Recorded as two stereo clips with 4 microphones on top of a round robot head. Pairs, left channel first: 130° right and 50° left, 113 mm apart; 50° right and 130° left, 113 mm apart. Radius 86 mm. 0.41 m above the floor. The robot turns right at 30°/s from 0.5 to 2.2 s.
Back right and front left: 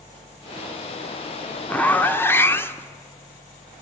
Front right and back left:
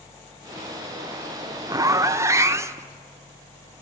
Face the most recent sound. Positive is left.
turn(degrees=175)